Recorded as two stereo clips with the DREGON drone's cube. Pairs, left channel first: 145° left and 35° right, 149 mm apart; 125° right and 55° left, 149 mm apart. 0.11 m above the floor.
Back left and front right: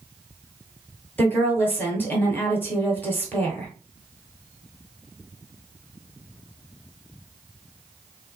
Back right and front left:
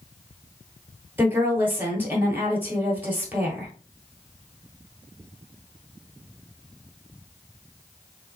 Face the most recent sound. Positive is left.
turn(degrees=105)